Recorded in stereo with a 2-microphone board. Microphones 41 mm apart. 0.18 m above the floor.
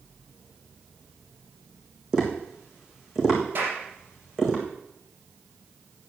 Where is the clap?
50° right (ahead or behind), 5 m.